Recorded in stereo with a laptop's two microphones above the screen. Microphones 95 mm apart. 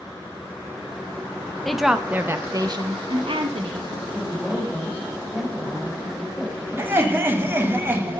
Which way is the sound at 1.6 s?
5° left (ahead or behind).